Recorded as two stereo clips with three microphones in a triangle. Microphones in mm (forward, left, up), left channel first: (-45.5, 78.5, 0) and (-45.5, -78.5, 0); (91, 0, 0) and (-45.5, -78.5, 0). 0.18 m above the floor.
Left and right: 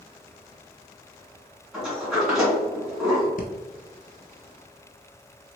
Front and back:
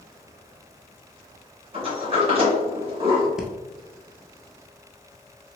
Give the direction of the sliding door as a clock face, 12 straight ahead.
6 o'clock.